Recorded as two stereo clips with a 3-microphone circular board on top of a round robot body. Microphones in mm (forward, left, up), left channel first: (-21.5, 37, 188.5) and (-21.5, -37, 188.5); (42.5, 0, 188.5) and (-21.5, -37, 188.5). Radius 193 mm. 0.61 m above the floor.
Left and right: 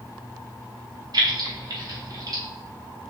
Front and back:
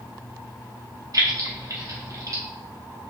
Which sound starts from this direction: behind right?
Keys jangling, at 1.1 s.